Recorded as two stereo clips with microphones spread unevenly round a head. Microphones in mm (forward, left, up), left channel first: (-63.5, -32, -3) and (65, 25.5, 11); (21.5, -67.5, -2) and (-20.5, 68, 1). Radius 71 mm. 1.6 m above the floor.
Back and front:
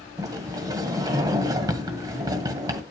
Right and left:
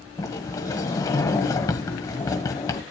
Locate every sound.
0.2 s a sliding door: 15° right, 1.7 m